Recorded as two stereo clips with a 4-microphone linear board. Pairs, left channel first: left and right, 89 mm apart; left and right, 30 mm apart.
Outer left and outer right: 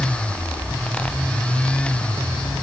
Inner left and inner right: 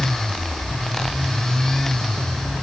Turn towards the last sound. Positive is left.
No sound to turn to.